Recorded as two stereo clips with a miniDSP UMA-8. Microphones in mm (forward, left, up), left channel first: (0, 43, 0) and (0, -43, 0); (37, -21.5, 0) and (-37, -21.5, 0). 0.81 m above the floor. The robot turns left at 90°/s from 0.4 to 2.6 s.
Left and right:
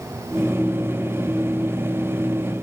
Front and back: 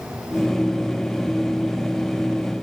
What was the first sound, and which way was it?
Only background noise.